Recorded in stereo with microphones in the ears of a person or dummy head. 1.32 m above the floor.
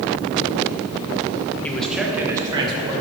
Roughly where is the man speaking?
Centre.